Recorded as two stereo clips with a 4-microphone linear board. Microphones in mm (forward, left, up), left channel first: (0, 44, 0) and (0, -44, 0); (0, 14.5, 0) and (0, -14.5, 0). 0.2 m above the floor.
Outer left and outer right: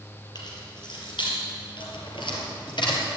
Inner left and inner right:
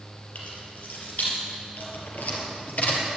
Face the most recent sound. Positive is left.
turn(degrees=65)  # may be behind; listen again after turning